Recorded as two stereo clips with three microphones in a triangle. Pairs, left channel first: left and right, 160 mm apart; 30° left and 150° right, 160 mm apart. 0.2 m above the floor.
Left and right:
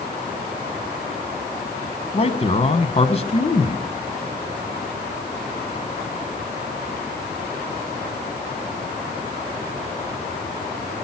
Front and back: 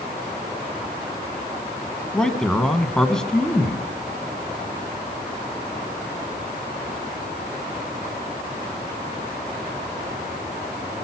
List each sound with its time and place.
2.1 s a man speaking: 115° left, 1.4 m